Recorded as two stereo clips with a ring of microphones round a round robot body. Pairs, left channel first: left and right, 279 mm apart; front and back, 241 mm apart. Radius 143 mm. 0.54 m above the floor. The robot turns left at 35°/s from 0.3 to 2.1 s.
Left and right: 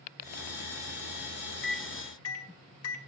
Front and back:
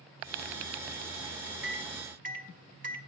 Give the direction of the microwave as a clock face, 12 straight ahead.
7 o'clock.